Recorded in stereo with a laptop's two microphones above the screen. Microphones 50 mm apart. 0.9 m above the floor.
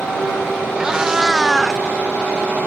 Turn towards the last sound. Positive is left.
turn(degrees=-5)  # may be behind; listen again after turning